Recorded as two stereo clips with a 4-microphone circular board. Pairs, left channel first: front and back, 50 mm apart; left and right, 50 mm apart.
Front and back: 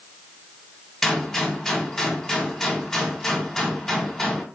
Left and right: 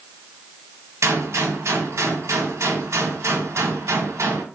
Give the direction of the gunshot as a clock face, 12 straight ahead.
3 o'clock.